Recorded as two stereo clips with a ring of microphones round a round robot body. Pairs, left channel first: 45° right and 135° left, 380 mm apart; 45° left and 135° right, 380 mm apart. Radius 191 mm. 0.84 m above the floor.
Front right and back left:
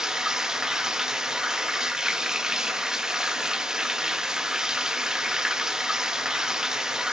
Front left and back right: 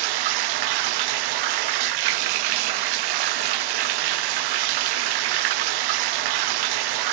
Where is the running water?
135° right, 0.9 m.